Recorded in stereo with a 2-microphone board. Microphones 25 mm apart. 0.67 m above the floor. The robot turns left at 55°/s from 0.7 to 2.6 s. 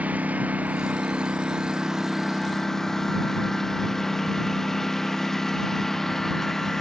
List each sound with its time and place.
0.0 s a lawn mower: 95° right; by 6.8 s 160° left